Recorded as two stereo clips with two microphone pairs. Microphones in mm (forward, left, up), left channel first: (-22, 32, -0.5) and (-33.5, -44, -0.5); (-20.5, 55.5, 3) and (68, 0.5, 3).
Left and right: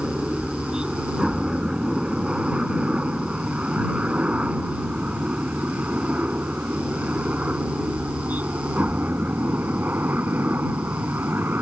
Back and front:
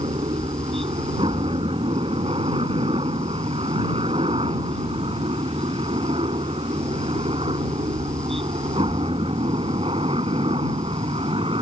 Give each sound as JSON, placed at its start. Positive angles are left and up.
{"t": 0.0, "sound": "a helicopter", "azimuth_deg": -20}